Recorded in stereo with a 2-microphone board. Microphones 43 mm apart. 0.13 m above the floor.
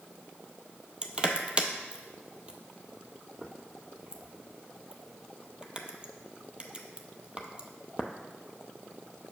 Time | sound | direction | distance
1.0 | crushing | 25° right (ahead or behind) | 0.5 m